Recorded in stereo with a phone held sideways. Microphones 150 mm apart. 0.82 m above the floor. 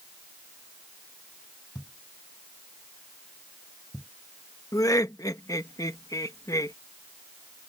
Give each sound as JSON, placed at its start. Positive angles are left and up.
{"t": 1.8, "sound": "a thud", "side_deg": 0}
{"t": 4.7, "sound": "laughter", "side_deg": 20}